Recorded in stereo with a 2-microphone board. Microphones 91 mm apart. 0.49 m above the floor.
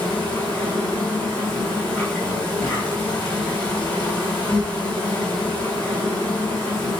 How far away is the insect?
About 3.5 m.